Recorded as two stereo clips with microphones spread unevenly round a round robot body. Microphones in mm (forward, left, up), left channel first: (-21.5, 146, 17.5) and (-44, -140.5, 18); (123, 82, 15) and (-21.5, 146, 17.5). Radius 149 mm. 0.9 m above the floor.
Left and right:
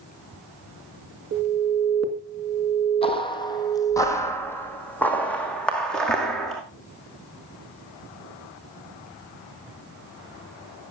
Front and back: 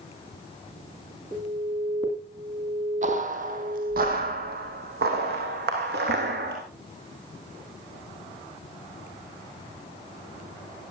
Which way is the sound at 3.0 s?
150° left.